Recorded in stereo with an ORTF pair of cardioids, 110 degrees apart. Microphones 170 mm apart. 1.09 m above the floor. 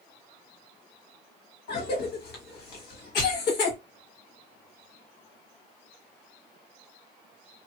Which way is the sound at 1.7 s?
65° left.